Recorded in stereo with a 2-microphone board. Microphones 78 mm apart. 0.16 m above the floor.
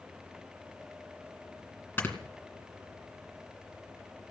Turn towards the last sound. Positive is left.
turn(degrees=25)  # may be behind; listen again after turning